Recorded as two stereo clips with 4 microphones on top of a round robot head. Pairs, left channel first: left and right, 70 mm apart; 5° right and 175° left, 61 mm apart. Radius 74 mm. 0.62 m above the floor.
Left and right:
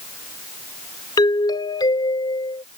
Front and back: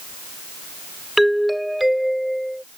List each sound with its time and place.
1.2 s a doorbell: 90° left